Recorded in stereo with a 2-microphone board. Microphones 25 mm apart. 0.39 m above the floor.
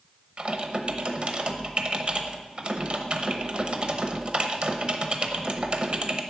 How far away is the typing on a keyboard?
About 0.9 m.